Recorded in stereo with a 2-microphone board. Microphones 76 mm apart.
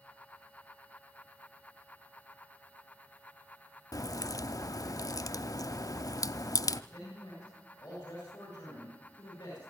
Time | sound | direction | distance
3.9 | a crack | 50° left (ahead or behind) | 0.5 m
6.9 | a man speaking | 45° left (ahead or behind) | 7 m